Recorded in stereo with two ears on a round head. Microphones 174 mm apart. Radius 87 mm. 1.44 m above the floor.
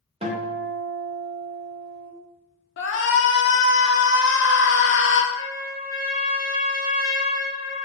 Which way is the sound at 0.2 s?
35° right (ahead or behind).